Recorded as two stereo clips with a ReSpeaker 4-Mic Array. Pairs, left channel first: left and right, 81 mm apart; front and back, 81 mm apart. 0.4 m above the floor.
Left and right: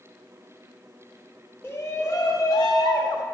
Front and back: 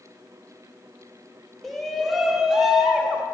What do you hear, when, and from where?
1.6 s a shout: 85° left, 0.8 m; by 3.2 s 100° left, 1.4 m